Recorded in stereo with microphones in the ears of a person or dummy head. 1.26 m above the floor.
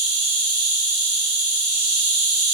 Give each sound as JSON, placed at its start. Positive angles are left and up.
{"t": 0.0, "sound": "an insect", "side_deg": -35, "distance_m": 1.5}